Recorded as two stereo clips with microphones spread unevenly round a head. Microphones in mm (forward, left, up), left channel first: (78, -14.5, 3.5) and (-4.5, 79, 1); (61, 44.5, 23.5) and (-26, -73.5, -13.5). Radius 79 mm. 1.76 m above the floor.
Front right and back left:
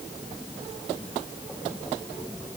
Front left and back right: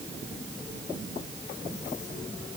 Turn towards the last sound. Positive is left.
No sound to turn to.